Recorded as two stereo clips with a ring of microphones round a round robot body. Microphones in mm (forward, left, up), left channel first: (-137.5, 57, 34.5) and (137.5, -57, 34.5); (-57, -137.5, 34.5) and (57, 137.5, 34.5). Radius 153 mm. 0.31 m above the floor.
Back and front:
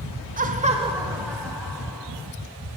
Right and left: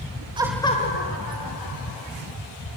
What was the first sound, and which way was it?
Laughter, 10° left.